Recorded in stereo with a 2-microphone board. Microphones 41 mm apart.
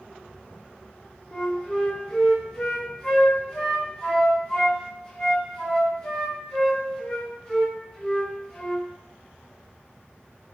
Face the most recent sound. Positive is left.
turn(degrees=20)  # may be behind; listen again after turning